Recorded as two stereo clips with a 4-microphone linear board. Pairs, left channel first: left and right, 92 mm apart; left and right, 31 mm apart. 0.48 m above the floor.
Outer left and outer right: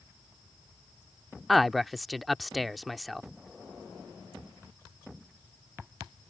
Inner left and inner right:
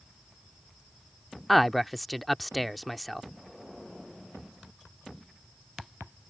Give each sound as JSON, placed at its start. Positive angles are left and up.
{"t": 1.5, "sound": "a man speaking", "side_deg": 0}